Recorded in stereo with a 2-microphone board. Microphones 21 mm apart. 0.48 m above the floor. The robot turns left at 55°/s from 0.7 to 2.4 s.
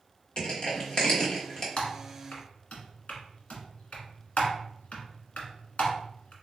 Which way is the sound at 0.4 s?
35° left (ahead or behind).